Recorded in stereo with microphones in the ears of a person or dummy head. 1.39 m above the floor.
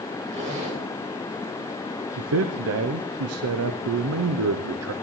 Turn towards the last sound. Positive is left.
turn(degrees=-65)  # may be behind; listen again after turning